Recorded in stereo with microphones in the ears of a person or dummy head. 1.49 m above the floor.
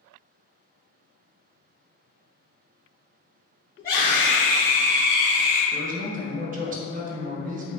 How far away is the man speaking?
About 0.5 m.